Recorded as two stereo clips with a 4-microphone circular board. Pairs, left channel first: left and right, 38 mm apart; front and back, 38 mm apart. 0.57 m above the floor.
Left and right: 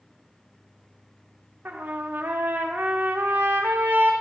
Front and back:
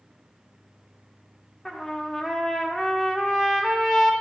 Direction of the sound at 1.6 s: 80° right.